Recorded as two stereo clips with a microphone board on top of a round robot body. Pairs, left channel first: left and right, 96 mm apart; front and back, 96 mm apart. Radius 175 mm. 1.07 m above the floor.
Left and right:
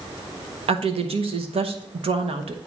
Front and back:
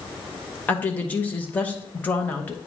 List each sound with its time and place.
0.7 s a woman speaking: 75° right, 1.1 m